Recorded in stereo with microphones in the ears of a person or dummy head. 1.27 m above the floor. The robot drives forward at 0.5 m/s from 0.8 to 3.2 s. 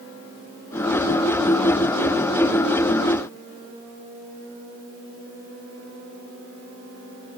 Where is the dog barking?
I don't hear a dog barking.